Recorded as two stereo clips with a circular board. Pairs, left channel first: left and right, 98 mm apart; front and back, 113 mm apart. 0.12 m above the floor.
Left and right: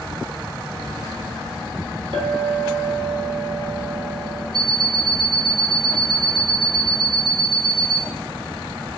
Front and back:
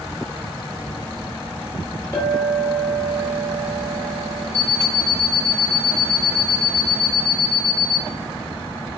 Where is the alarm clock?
75° right, 1.0 m.